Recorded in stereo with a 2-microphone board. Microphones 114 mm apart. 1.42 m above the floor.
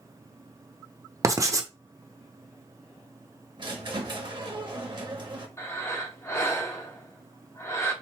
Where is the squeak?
45° right (ahead or behind), 0.9 m.